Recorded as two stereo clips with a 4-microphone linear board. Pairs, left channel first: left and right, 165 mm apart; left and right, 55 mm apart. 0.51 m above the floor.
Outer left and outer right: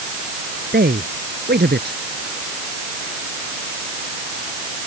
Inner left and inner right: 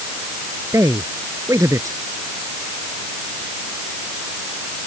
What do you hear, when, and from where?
0.7 s a man speaking: 85° right